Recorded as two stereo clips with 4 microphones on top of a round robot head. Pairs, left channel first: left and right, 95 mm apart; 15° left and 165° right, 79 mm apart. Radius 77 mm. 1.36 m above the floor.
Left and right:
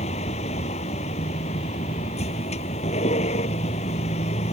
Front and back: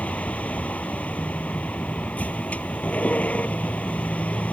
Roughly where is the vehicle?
Left.